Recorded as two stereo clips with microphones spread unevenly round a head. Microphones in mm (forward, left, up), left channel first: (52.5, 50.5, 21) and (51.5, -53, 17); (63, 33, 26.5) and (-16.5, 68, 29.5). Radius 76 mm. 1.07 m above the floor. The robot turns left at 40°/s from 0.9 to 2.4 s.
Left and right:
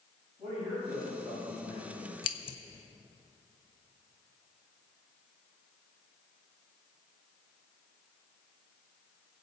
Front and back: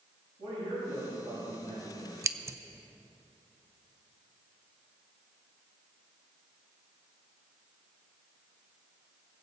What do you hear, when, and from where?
0.4 s a man speaking: 170° right, 6 m; by 2.1 s 140° left, 6 m
2.2 s scissors: 115° left, 0.8 m; by 2.6 s 105° left, 0.8 m